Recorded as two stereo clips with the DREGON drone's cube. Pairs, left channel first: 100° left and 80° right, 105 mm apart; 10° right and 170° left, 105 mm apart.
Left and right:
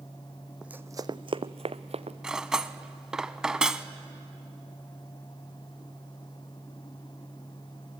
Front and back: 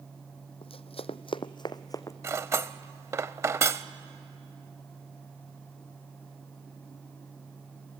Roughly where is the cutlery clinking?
Behind right.